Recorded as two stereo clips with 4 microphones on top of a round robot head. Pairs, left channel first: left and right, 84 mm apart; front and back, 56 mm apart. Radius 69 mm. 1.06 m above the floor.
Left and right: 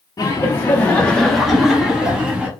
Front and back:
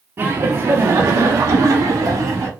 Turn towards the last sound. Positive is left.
turn(degrees=-165)